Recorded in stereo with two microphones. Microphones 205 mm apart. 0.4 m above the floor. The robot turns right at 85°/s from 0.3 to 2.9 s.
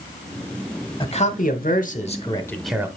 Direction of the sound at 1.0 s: 40° left.